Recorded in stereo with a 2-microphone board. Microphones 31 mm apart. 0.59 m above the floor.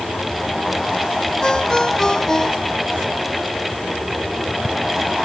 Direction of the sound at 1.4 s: 20° left (ahead or behind).